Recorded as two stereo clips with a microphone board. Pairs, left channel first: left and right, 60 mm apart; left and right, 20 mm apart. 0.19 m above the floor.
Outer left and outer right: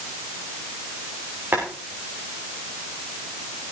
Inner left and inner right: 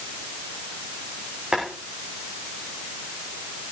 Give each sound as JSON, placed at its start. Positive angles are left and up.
{"t": 1.5, "sound": "boiling", "side_deg": -40, "distance_m": 7.0}